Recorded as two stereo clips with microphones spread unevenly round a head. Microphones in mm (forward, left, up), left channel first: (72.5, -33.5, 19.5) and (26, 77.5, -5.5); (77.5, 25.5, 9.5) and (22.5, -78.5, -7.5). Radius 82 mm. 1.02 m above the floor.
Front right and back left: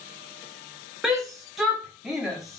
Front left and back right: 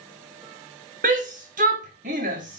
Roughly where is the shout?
Behind.